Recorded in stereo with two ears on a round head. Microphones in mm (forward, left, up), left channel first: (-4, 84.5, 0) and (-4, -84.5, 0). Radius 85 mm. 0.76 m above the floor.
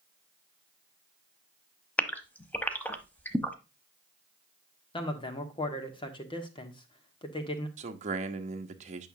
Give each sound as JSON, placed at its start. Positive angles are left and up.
{"t": 2.0, "sound": "a gasp", "side_deg": 10, "distance_m": 0.9}
{"t": 4.9, "sound": "a man speaking", "side_deg": 25, "distance_m": 1.6}
{"t": 7.8, "sound": "a man speaking", "side_deg": -40, "distance_m": 1.1}